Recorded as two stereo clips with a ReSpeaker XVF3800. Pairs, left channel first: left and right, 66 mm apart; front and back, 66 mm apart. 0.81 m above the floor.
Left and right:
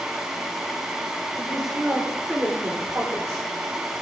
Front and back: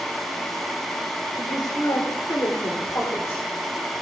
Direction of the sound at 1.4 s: 5° left.